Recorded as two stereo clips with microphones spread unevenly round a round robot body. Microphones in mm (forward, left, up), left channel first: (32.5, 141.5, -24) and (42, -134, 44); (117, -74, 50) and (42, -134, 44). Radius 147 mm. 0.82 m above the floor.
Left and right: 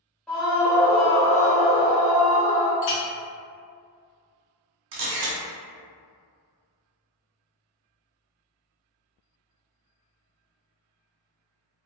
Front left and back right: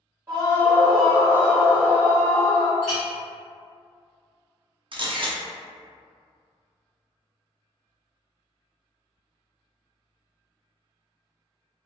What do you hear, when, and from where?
0.3 s a scream: 165° left, 1.2 m; by 2.7 s 60° right, 1.4 m
2.8 s a clink: 125° left, 0.6 m
4.9 s a camera shutter: 100° right, 0.7 m